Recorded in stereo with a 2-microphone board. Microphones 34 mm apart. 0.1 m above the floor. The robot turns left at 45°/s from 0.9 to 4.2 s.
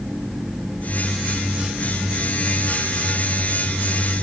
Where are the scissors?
No scissors in this recording.